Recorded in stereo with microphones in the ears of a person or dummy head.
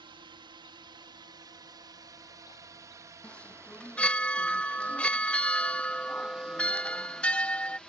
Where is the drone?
25° right (ahead or behind); by 7.9 s 5° left (ahead or behind).